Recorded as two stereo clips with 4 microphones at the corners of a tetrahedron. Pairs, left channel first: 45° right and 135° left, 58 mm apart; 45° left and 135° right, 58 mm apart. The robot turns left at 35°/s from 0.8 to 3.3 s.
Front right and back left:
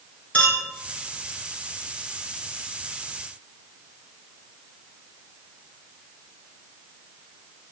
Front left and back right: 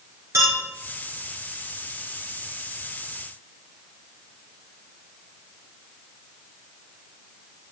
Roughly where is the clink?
Right.